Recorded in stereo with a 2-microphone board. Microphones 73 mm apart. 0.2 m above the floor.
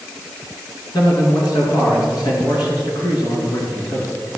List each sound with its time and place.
0.9 s a man speaking: 65° left (ahead or behind), 3.5 m